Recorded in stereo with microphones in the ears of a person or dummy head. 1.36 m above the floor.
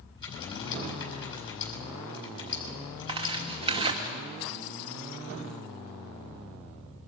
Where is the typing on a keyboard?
30° left (ahead or behind), 8 m.